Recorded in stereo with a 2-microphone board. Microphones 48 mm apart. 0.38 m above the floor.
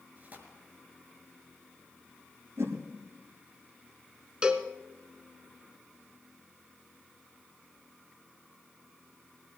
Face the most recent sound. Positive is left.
turn(degrees=-20)  # may be behind; listen again after turning